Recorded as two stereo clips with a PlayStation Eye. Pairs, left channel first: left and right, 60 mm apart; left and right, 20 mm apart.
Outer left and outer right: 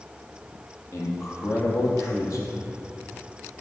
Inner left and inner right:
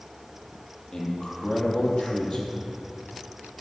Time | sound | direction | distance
0.9 | a man speaking | 50° left (ahead or behind) | 5 m